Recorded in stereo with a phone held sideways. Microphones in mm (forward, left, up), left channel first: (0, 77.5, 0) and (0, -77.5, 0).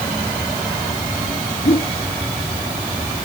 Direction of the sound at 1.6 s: 80° left.